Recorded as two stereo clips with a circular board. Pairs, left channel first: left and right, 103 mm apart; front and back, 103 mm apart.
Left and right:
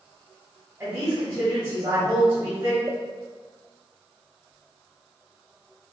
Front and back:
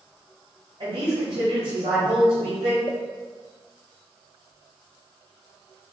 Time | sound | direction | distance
0.8 | a woman speaking | 150° right | 2.0 m
2.9 | a pop | 30° right | 0.6 m